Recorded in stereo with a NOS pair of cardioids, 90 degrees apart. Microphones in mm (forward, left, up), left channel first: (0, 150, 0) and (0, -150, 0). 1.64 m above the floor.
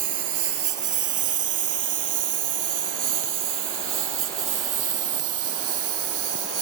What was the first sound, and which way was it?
A lawn mower, 70° right.